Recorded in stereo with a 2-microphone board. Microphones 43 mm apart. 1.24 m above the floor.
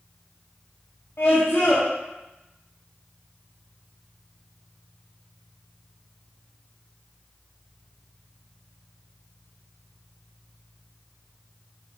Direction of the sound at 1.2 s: 85° left.